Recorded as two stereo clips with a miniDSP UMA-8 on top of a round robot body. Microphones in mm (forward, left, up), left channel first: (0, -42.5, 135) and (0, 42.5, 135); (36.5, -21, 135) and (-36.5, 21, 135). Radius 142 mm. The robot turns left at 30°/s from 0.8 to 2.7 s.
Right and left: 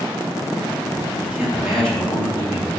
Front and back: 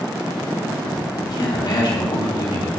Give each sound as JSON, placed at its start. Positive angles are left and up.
{"t": 1.2, "sound": "a man speaking", "azimuth_deg": 15, "distance_m": 3.0}